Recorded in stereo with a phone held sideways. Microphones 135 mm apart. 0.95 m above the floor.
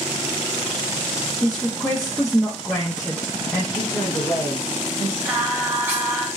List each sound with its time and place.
1.4 s a woman speaking: centre (ahead or behind), 0.6 m
3.8 s a woman speaking: 25° left (ahead or behind), 1.4 m
5.2 s singing: 20° right (ahead or behind), 1.0 m